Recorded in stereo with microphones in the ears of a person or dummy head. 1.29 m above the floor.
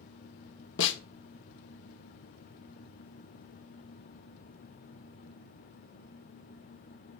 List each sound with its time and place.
0.8 s a snare drum: 75° left (ahead or behind), 1.4 m